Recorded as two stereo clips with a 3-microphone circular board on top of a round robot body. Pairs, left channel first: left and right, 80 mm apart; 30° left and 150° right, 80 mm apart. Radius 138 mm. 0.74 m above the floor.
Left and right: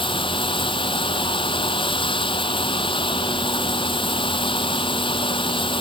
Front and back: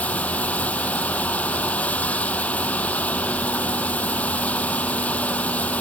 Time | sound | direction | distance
0.0 | running water | 105° left | ?